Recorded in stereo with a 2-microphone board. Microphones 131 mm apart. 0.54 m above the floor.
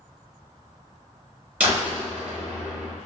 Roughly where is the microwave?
I don't hear a microwave.